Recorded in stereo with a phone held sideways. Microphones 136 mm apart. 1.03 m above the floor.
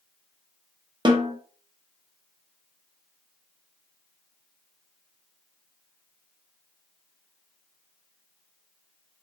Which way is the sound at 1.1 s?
35° right (ahead or behind).